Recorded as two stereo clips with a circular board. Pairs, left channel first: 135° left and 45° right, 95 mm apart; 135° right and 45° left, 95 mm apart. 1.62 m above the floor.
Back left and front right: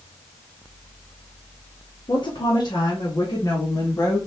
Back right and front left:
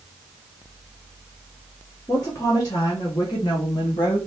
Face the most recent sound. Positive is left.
turn(degrees=-170)